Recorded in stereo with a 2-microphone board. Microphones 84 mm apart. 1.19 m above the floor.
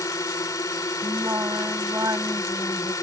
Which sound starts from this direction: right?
Singing, at 1.0 s.